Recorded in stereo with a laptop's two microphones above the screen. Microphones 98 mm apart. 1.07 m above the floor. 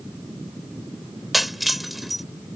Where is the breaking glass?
Centre (ahead or behind).